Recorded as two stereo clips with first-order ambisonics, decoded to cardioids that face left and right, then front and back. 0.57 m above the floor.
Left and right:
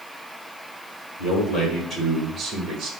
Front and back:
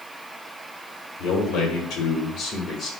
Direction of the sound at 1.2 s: 45° left.